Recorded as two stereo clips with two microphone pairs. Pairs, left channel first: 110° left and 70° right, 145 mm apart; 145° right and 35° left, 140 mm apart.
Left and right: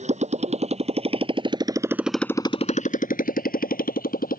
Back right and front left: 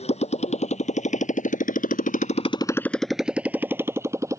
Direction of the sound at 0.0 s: 105° right.